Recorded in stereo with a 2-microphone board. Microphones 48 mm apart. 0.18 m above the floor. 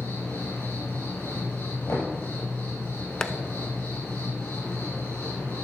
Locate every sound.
0.0 s an insect: 75° left (ahead or behind), 4 m
1.9 s knocking: 70° left (ahead or behind), 4.5 m
3.2 s tapping: 15° left (ahead or behind), 0.5 m